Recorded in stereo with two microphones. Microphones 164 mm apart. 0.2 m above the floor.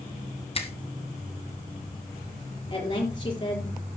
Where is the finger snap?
35° left (ahead or behind), 2 m.